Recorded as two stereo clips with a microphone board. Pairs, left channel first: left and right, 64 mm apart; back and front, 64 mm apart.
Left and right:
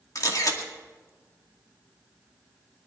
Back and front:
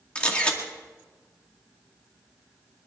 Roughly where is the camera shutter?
Left.